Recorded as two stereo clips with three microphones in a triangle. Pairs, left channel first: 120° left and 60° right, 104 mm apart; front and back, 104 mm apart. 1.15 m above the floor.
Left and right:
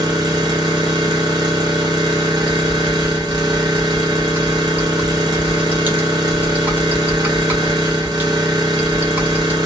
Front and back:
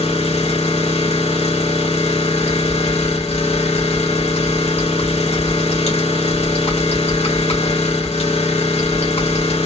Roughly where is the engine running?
Ahead.